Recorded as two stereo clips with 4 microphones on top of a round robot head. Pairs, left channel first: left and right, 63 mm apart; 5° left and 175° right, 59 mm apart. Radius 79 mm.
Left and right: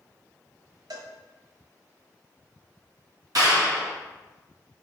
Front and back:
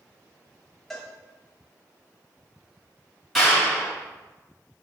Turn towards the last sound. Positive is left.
turn(degrees=-85)